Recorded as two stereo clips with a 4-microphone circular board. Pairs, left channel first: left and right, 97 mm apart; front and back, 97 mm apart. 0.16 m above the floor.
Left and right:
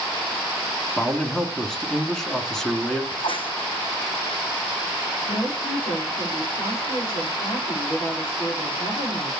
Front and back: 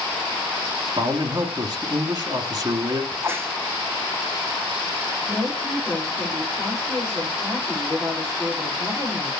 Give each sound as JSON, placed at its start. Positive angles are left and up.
{"t": 1.0, "sound": "a man speaking", "azimuth_deg": 170, "distance_m": 1.7}
{"t": 3.1, "sound": "a crack", "azimuth_deg": 115, "distance_m": 1.6}
{"t": 5.3, "sound": "a woman speaking", "azimuth_deg": 90, "distance_m": 7.0}